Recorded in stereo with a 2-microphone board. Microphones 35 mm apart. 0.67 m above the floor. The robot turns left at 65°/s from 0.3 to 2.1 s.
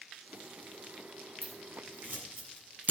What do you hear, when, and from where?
1.4 s scissors: 80° right, 8 m; by 2.9 s 55° right (ahead or behind), 8 m